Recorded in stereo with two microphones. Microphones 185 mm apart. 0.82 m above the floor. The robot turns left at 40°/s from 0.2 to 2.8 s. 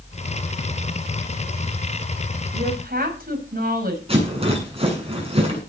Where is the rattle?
30° right (ahead or behind), 8 m.